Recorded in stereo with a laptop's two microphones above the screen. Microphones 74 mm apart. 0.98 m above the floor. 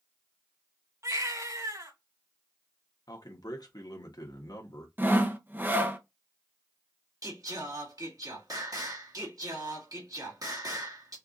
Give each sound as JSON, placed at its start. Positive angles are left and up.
{"t": 1.0, "sound": "a baby crying", "side_deg": -50, "distance_m": 2.5}
{"t": 3.1, "sound": "a man speaking", "side_deg": 65, "distance_m": 1.4}
{"t": 5.0, "sound": "sawing", "side_deg": -25, "distance_m": 0.7}
{"t": 7.2, "sound": "singing", "side_deg": -55, "distance_m": 1.8}